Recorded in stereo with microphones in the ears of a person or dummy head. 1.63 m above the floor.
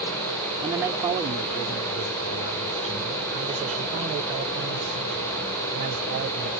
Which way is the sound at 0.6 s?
20° right (ahead or behind).